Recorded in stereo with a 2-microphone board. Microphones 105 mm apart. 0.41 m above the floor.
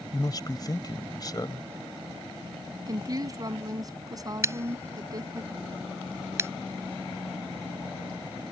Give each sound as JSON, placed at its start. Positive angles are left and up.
{"t": 0.1, "sound": "a man speaking", "side_deg": 40}
{"t": 2.9, "sound": "a woman speaking", "side_deg": -35}
{"t": 4.4, "sound": "scissors", "side_deg": -25}